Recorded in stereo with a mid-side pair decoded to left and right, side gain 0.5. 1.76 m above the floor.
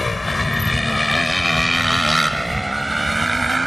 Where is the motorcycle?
20° left; by 3.7 s 15° right.